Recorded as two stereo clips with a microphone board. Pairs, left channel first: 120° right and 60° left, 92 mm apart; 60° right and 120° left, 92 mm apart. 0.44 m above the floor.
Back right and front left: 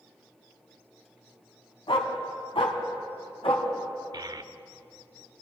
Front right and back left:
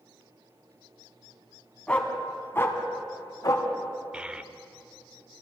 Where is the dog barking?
135° right, 1.6 m; by 3.7 s 105° right, 1.8 m.